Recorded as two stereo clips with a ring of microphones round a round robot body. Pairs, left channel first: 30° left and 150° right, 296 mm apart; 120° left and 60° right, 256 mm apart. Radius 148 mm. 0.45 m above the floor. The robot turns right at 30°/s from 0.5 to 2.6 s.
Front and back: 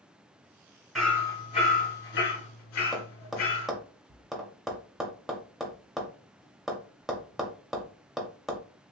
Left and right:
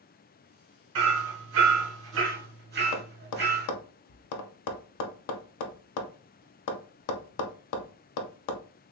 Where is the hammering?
60° right, 1.3 m; by 3.7 s 10° right, 1.3 m.